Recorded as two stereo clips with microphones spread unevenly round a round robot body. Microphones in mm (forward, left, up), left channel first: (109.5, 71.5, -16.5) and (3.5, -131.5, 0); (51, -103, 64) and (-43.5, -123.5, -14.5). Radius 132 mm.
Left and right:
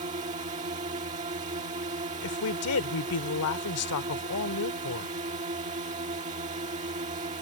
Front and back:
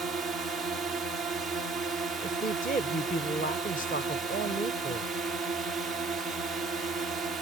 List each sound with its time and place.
0.0 s a drone: 170° right
2.2 s a woman speaking: 65° left